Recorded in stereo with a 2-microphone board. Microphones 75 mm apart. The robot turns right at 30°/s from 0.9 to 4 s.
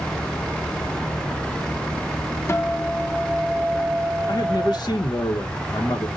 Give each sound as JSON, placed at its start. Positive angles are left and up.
{"t": 2.5, "sound": "a guitar", "azimuth_deg": 145, "distance_m": 0.5}
{"t": 4.3, "sound": "a man speaking", "side_deg": 65, "distance_m": 0.8}